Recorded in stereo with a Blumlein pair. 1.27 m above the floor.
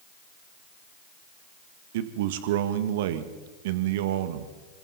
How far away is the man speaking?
About 1.6 m.